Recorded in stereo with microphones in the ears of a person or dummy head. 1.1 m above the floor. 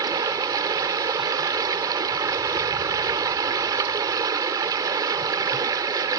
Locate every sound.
0.0 s running water: 20° right (ahead or behind)